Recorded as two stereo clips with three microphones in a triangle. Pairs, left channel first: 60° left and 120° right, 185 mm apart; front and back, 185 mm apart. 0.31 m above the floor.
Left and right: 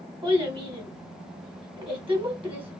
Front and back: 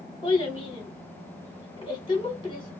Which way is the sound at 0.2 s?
60° right.